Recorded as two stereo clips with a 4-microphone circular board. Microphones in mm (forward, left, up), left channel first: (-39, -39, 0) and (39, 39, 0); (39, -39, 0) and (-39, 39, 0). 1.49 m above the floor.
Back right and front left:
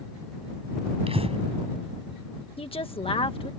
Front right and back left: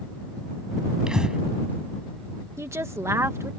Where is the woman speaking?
160° right.